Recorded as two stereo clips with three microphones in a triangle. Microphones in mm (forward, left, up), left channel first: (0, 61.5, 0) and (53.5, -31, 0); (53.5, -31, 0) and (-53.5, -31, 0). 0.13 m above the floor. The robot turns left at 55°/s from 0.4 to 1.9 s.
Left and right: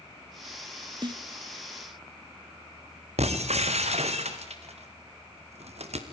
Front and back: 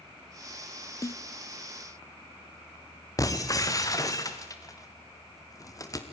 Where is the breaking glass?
60° right, 2.5 m.